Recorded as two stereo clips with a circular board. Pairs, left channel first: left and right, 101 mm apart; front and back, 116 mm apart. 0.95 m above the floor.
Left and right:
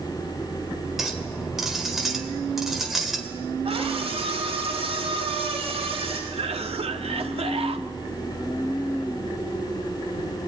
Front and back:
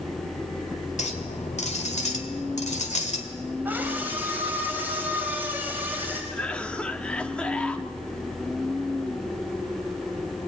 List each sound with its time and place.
1.0 s a clink: straight ahead, 2.5 m
3.6 s a scream: 105° right, 4 m
6.3 s a cough: 80° right, 1.6 m